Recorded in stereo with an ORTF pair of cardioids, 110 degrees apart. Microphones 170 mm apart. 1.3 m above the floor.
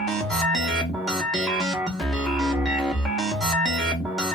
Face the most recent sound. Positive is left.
turn(degrees=5)